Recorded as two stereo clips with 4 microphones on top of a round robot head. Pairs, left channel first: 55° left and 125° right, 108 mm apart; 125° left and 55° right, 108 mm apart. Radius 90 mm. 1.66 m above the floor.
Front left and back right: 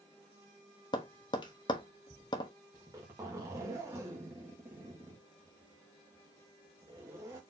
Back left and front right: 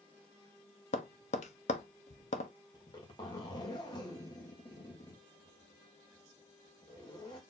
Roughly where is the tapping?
Left.